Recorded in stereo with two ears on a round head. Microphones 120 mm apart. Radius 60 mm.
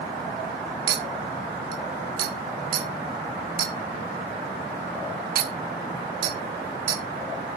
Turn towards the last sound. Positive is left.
turn(degrees=-80)